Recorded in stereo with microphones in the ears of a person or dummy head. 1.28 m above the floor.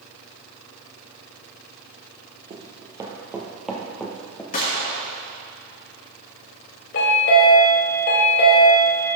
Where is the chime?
50° left (ahead or behind), 1.3 m.